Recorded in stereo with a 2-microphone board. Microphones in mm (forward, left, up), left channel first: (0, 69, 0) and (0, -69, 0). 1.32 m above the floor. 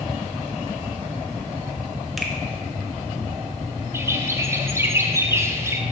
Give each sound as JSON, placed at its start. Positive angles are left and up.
{"t": 2.2, "sound": "a finger snap", "side_deg": 0, "distance_m": 0.8}
{"t": 3.9, "sound": "a bird", "side_deg": -20, "distance_m": 0.5}